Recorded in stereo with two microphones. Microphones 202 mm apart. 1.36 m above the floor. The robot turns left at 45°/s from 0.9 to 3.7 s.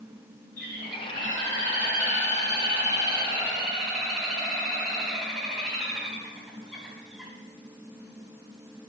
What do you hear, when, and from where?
0.6 s a bird: 50° right, 4 m; by 7.3 s straight behind, 4 m